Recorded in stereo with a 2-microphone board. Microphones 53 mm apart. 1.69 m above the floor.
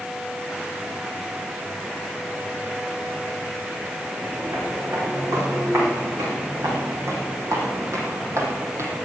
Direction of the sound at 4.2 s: 75° right (ahead or behind).